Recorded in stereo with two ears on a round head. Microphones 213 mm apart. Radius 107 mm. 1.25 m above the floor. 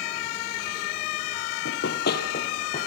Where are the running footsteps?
50° left (ahead or behind), 2 m; by 2.9 s 30° left (ahead or behind), 3.5 m.